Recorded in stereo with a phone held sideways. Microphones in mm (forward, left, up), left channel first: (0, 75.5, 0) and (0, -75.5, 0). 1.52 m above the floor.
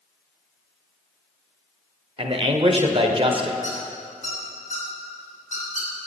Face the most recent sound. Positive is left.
turn(degrees=60)  # may be behind; listen again after turning